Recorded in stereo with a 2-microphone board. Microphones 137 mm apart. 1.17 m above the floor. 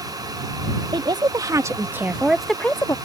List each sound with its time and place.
0.9 s a woman speaking: 35° right (ahead or behind); by 3.0 s 25° left (ahead or behind)